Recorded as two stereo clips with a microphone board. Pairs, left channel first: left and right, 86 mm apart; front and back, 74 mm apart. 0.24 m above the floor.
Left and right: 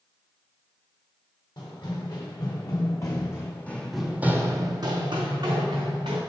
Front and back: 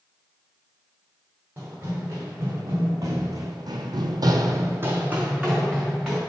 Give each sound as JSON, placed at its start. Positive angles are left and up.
{"t": 1.6, "sound": "running footsteps", "azimuth_deg": 125, "distance_m": 1.7}